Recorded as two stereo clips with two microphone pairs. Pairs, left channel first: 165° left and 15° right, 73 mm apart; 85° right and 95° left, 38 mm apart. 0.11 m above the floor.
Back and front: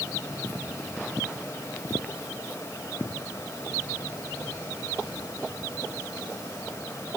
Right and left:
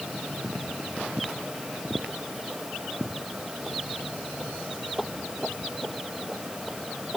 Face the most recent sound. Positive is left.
No sound to turn to.